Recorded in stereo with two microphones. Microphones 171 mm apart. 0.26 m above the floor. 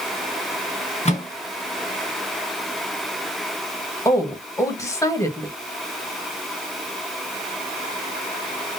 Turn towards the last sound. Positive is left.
turn(degrees=20)  # may be behind; listen again after turning